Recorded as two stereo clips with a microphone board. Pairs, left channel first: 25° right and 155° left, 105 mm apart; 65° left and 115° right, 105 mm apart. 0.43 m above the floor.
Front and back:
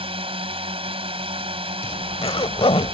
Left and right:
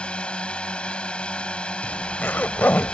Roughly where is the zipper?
Ahead.